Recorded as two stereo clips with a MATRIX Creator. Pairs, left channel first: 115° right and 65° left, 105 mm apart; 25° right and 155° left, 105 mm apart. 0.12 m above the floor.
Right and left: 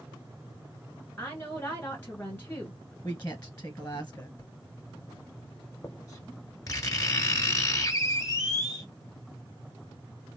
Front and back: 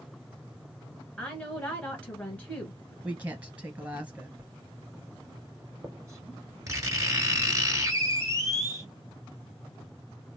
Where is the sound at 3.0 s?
150° right, 1.2 m.